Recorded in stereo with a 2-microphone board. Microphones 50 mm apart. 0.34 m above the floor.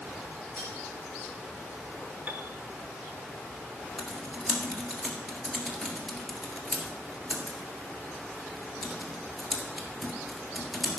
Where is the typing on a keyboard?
Centre (ahead or behind), 1.7 m.